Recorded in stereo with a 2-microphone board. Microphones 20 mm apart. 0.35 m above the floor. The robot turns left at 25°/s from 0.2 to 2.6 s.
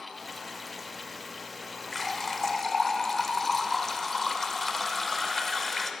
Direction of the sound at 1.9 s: 15° left (ahead or behind).